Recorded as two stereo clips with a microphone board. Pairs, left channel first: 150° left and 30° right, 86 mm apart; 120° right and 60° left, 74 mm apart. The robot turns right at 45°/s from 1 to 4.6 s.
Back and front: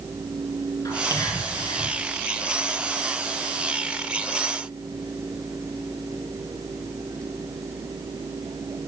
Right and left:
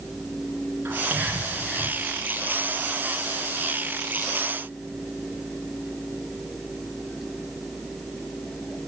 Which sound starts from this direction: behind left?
Whispering, at 0.8 s.